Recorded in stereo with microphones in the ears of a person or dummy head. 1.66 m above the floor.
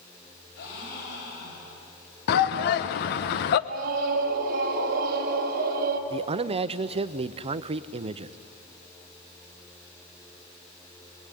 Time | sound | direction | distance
0.6 | a gasp | 60° left (ahead or behind) | 9 m
2.3 | a shout | 55° left (ahead or behind) | 1.0 m
3.7 | a scream | 45° right (ahead or behind) | 3.5 m
6.1 | a man speaking | 30° right (ahead or behind) | 0.7 m